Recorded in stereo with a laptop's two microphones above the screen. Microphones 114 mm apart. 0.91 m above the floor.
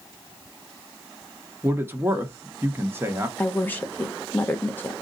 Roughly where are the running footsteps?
No running footsteps in this recording.